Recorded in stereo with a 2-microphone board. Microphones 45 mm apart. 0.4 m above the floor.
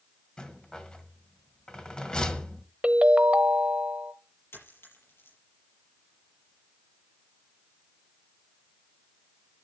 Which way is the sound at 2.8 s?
25° right (ahead or behind).